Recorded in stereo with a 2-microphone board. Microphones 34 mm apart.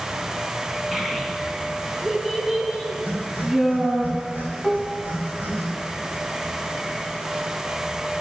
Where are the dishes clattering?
15° left (ahead or behind), 0.9 m.